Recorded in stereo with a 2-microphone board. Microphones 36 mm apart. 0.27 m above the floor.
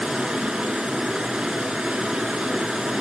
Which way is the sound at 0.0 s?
20° right (ahead or behind).